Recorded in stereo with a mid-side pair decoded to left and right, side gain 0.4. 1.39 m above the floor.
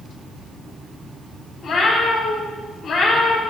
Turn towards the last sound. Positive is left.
turn(degrees=70)